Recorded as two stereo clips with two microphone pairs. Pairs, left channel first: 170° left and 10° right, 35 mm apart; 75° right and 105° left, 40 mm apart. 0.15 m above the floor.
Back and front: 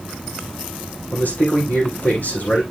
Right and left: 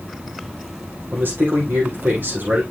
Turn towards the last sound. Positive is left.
turn(degrees=135)